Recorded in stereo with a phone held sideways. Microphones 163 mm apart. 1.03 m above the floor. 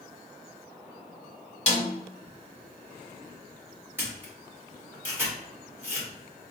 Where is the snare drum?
45° left (ahead or behind), 1.7 m.